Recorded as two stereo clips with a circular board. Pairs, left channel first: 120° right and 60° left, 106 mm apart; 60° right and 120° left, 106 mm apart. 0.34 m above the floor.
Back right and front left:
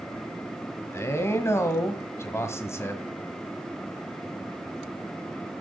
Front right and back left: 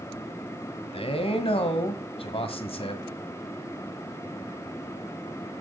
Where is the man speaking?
60° right, 1.7 m.